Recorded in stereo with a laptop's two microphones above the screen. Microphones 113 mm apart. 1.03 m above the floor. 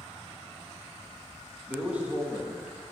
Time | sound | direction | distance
1.7 | a man speaking | 10° right (ahead or behind) | 1.6 m